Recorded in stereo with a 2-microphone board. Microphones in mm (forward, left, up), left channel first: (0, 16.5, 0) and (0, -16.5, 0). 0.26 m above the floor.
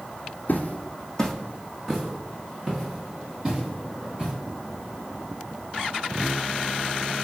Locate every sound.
0.5 s footsteps: 60° left (ahead or behind), 0.5 m; by 4.3 s 25° right (ahead or behind), 2 m